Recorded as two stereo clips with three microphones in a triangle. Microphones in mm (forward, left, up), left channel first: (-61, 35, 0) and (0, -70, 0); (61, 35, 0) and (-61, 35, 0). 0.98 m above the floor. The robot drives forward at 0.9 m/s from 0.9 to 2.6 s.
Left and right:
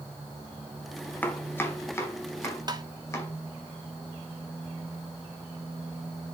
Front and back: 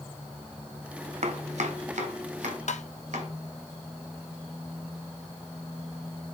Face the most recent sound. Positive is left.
turn(degrees=-10)